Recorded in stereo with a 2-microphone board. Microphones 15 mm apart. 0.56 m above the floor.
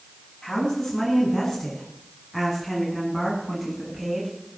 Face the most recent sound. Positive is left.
turn(degrees=-10)  # may be behind; listen again after turning